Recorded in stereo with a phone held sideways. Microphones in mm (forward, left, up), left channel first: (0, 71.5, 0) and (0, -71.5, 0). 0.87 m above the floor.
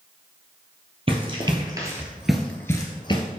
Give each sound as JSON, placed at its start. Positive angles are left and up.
{"t": 1.1, "sound": "running footsteps", "side_deg": -40, "distance_m": 1.4}